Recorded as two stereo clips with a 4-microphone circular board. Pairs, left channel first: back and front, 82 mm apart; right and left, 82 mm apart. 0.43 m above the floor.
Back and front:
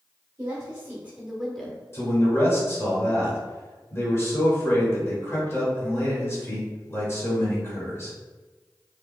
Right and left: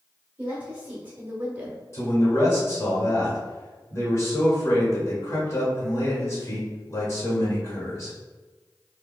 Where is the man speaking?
130° right, 1.8 m.